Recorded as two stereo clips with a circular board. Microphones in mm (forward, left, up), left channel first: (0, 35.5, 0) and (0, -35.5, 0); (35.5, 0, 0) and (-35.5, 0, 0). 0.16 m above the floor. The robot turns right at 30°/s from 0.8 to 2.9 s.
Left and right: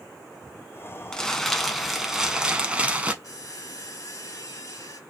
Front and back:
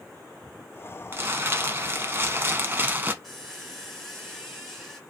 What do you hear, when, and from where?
1.1 s crumpling: 160° left, 0.6 m; by 3.1 s 145° right, 0.6 m
3.2 s a squeak: 90° left, 1.4 m